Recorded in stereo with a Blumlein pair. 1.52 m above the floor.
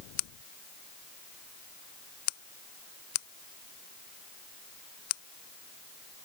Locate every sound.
Only background noise.